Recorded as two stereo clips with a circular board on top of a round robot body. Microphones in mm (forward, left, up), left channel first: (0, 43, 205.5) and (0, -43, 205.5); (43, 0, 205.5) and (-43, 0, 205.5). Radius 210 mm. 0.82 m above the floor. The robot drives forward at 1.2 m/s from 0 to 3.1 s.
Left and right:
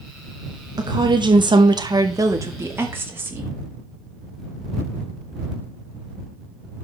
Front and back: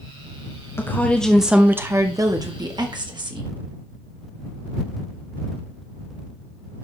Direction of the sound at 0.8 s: 55° right.